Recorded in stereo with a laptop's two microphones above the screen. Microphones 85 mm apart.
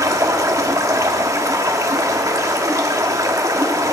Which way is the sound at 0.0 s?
35° right (ahead or behind).